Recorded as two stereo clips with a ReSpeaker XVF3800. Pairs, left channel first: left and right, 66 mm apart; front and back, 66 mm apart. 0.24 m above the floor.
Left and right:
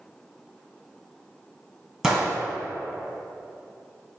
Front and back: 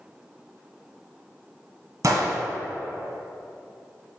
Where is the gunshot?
170° right, 1.2 m.